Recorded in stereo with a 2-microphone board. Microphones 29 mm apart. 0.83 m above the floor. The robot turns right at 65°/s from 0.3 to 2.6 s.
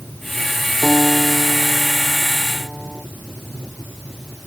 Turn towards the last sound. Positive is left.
turn(degrees=-10)